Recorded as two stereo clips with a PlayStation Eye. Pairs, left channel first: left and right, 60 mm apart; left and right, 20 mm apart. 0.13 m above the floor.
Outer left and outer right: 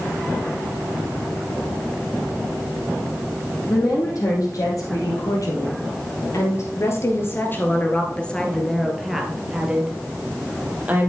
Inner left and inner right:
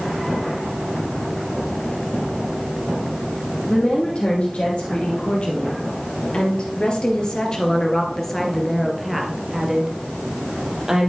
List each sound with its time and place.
3.7 s a woman speaking: 75° left (ahead or behind), 4 m; by 11.1 s 25° right (ahead or behind), 3 m